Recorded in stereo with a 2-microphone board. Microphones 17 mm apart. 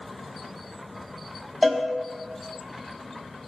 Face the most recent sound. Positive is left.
turn(degrees=15)  # may be behind; listen again after turning